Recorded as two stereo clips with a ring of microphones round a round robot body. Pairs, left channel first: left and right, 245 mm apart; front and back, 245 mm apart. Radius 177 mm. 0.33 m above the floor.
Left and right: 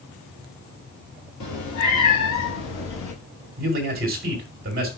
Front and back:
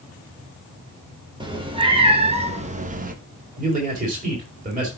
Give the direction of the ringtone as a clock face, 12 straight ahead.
No ringtone in this recording.